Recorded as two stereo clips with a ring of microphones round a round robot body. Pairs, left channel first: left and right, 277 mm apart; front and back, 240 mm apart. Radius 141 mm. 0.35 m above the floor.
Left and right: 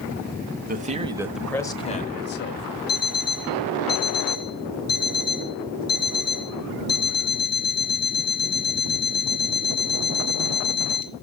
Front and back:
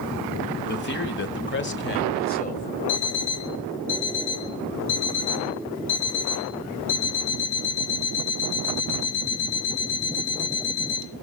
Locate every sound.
0.7 s a man speaking: 40° right, 1.4 m; by 2.8 s 55° left, 1.9 m
2.9 s an alarm clock: 35° left, 2.5 m